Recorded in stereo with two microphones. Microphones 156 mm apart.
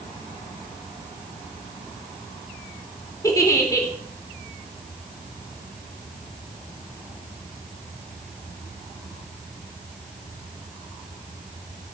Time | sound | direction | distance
3.2 | a giggle | 20° left (ahead or behind) | 3.5 m